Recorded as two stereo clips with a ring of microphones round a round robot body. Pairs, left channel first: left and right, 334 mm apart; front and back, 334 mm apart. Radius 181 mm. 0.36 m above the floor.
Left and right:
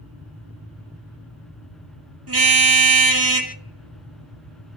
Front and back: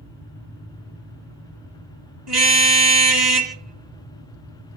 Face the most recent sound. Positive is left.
turn(degrees=-135)